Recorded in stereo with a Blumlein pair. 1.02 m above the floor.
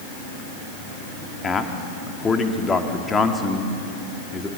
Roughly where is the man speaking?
Ahead.